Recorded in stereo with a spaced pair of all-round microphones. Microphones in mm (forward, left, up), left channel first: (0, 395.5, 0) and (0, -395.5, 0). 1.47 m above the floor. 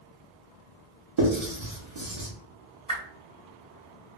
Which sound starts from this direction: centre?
A whoosh, at 2.9 s.